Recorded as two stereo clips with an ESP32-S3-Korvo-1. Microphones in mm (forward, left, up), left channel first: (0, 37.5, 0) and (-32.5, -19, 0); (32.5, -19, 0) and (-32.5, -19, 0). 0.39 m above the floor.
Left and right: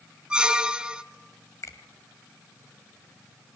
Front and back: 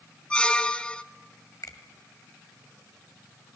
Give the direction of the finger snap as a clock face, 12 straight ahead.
11 o'clock.